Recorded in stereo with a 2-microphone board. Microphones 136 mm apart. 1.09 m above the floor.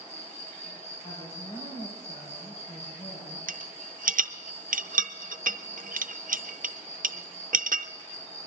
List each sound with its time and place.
0.0 s an insect: 50° left (ahead or behind), 3 m
1.0 s a woman speaking: 65° left (ahead or behind), 5 m
3.5 s a rattle: 80° right, 0.5 m